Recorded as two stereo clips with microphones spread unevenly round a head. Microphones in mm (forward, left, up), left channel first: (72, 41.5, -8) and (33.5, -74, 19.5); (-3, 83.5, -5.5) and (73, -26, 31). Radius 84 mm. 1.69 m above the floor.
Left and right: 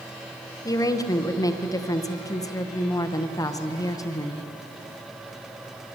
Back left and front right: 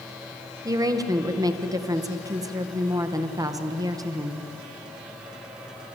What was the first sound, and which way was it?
A woman speaking, 10° left.